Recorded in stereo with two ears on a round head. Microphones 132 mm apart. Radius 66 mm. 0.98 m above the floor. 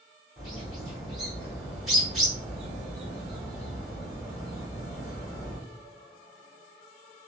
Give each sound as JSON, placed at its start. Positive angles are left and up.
{"t": 0.4, "sound": "a bird", "side_deg": 0, "distance_m": 1.5}